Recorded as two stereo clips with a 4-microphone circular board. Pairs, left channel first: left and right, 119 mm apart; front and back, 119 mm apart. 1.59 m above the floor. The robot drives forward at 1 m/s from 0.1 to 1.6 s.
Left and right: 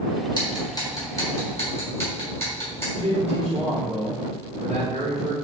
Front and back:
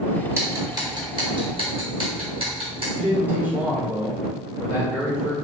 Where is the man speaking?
105° right, 2 m.